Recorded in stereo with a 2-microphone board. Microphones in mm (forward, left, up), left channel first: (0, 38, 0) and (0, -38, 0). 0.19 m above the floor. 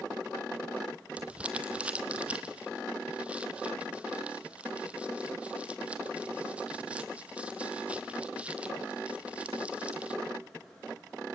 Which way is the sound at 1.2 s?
15° right (ahead or behind).